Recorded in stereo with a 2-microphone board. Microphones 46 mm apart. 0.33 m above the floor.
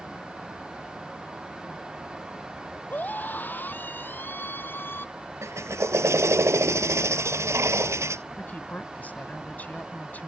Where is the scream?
40° left (ahead or behind); by 5.1 s 50° left (ahead or behind).